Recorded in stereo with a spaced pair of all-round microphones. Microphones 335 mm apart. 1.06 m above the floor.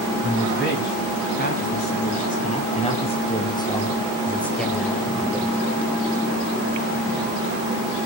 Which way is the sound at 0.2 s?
35° left (ahead or behind).